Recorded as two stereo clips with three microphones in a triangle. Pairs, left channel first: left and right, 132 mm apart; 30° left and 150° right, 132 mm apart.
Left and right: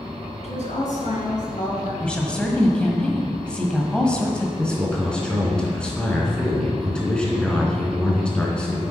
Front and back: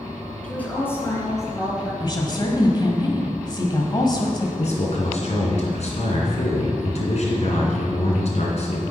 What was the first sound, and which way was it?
A woman speaking, 110° left.